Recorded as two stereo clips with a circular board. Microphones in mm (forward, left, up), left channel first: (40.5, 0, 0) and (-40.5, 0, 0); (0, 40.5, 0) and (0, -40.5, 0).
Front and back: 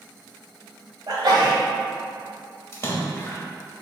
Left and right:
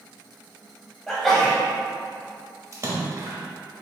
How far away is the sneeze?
About 1.6 m.